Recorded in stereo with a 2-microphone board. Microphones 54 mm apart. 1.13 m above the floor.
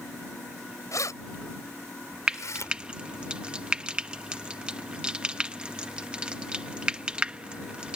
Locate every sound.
0.9 s keys jangling: 80° left; by 2.7 s 75° left (ahead or behind)
2.3 s frying: 20° right (ahead or behind)